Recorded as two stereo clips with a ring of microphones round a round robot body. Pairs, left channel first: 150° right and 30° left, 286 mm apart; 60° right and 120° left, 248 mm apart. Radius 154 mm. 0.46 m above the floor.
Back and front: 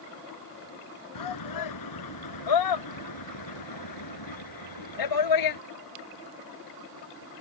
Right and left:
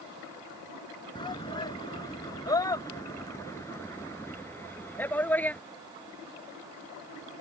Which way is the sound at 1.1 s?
135° right.